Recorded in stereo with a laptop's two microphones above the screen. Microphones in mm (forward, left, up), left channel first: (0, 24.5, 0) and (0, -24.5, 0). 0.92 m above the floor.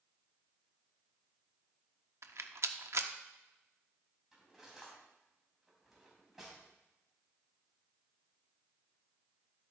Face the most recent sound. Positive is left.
turn(degrees=-5)  # may be behind; listen again after turning